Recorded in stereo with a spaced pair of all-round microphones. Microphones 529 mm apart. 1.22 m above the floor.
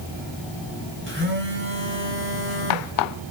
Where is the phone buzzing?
25° right (ahead or behind), 5 m.